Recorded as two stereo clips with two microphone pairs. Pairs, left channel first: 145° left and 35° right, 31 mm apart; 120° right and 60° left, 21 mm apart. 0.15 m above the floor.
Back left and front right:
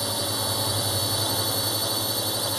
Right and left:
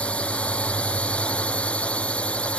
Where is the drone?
130° right.